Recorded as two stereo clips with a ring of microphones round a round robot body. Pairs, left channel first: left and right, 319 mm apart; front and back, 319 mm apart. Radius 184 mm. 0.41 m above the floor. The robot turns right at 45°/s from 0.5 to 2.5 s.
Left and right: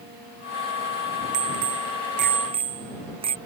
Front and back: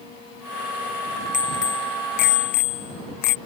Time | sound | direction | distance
1.3 | a bicycle bell | 65° right | ?